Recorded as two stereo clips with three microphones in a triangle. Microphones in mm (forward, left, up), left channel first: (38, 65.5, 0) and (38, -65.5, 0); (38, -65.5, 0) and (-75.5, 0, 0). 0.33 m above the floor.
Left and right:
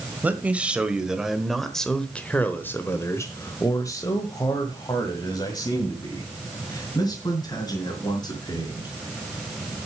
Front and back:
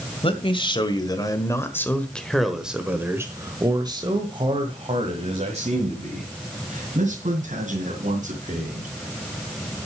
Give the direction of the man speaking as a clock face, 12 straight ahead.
1 o'clock.